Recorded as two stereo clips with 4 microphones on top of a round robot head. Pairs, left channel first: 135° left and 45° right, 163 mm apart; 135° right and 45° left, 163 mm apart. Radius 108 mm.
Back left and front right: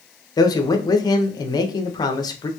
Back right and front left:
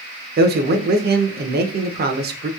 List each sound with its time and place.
0.4 s a man speaking: 70° left, 0.6 m